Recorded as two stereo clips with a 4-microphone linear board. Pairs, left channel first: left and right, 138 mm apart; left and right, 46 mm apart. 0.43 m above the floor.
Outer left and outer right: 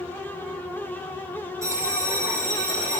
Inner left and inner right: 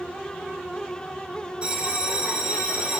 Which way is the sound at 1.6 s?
25° right (ahead or behind).